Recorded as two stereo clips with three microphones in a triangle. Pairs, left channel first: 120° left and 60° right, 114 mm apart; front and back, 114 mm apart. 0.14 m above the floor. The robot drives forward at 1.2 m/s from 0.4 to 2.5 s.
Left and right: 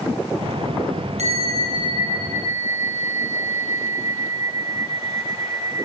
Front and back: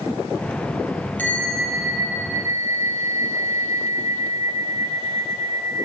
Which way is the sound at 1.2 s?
75° right.